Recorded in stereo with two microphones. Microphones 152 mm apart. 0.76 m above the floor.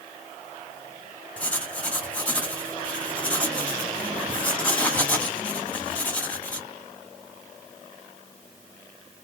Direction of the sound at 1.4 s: 10° left (ahead or behind).